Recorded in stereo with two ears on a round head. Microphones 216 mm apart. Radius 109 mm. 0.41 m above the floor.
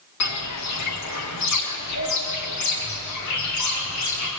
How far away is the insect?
No insect in this recording.